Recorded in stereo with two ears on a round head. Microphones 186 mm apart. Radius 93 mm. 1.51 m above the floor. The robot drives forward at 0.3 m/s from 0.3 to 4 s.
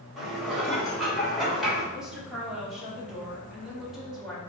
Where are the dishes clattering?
Centre (ahead or behind), 3.5 m.